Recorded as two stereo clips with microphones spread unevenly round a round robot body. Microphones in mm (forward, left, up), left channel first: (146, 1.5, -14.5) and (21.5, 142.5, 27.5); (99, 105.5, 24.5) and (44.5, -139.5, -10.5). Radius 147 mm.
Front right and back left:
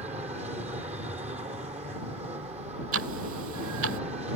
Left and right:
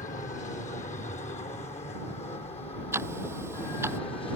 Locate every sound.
0.0 s an aircraft: 105° left; by 4.4 s 130° left
2.9 s ticking: 175° left